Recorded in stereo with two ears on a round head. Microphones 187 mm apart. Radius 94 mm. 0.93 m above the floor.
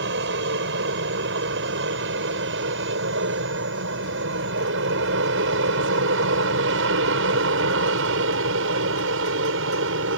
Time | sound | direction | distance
0.0 | an aircraft | 60° right (ahead or behind) | ?